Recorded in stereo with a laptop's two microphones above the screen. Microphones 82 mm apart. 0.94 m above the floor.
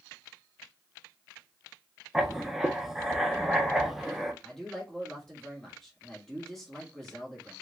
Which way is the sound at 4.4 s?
5° left (ahead or behind).